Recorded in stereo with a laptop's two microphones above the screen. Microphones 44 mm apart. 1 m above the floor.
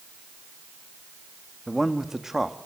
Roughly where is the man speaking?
Centre.